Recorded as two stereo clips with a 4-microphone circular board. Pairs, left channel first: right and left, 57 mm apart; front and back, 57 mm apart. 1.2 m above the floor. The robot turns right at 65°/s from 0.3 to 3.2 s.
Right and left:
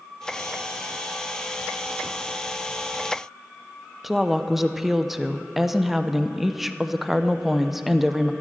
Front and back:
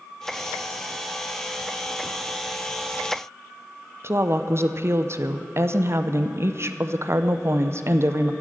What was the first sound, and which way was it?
A woman speaking, straight behind.